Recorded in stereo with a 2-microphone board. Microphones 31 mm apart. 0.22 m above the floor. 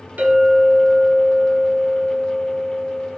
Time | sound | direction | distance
0.2 | a clink | 60° right (ahead or behind) | 1.4 m